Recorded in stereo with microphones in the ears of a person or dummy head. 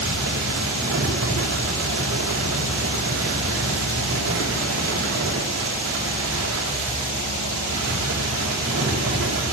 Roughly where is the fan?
Right.